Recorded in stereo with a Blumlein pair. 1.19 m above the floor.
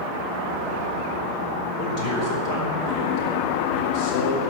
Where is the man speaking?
40° left, 4 m.